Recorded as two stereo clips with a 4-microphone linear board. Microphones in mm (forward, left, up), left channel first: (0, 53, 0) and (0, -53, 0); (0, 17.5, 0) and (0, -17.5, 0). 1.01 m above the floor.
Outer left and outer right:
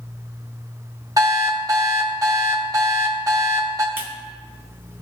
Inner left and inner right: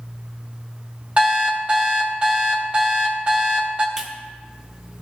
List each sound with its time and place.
1.2 s an alarm clock: 35° right (ahead or behind), 1.0 m
4.0 s a clap: 20° right (ahead or behind), 0.9 m